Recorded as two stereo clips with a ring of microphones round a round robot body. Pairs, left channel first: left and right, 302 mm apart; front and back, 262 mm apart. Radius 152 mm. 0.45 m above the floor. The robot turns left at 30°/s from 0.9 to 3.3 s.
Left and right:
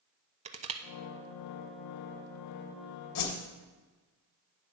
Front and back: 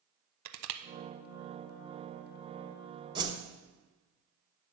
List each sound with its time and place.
0.5 s crushing: 160° right, 0.6 m
3.1 s a whoosh: 110° left, 1.3 m; by 3.4 s 105° left, 1.3 m